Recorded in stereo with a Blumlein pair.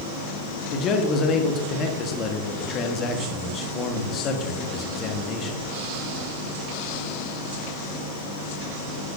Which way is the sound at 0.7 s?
30° left.